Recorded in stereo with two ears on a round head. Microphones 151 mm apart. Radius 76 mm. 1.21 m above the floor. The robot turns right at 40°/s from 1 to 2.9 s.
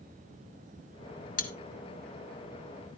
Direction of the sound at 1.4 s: 50° left (ahead or behind).